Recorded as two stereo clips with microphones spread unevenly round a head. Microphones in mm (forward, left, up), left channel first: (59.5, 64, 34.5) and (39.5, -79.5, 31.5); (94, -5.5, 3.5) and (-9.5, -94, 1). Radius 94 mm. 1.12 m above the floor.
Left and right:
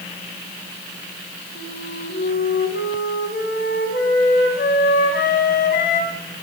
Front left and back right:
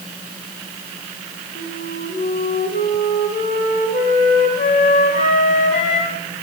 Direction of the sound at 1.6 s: 80° left.